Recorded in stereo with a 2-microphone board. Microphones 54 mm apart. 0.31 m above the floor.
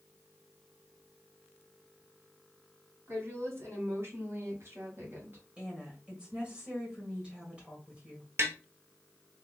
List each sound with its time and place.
3.1 s a woman speaking: 55° right (ahead or behind), 2.5 m; by 5.4 s 45° right (ahead or behind), 1.9 m
5.6 s a woman speaking: 20° right (ahead or behind), 1.7 m
8.4 s tapping: 55° right (ahead or behind), 1.0 m